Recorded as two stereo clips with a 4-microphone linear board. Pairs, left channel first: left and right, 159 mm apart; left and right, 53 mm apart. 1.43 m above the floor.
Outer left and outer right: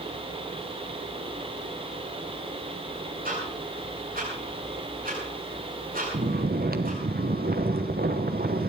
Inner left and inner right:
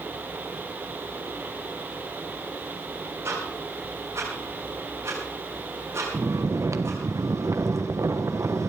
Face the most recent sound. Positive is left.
turn(degrees=-75)  # may be behind; listen again after turning